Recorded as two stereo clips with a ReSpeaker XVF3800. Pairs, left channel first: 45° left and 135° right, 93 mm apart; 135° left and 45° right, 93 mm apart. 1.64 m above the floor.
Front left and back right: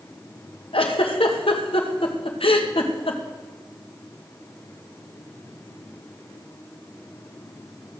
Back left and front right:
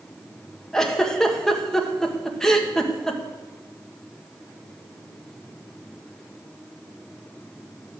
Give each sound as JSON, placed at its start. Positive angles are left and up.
{"t": 0.7, "sound": "a giggle", "azimuth_deg": 50, "distance_m": 1.6}